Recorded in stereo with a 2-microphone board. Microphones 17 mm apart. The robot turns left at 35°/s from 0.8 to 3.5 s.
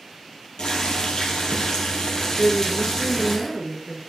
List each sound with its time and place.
0.6 s boiling: 95° left, 2.5 m; by 3.4 s 5° left, 2.5 m
2.4 s a woman speaking: 10° left (ahead or behind), 1.5 m; by 4.0 s 5° right (ahead or behind), 1.5 m